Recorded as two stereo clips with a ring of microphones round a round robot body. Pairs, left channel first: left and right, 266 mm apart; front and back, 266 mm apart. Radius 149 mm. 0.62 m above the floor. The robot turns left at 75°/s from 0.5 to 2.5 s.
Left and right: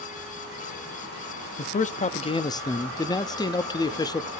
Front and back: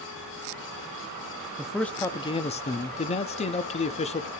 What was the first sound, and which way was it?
A man speaking, 100° left.